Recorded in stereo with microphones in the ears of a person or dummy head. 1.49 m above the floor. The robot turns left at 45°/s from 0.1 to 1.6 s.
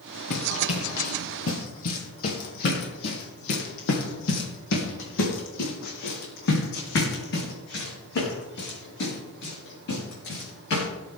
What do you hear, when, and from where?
0.3 s running footsteps: 60° left (ahead or behind), 3 m; by 10.9 s 65° left (ahead or behind), 7 m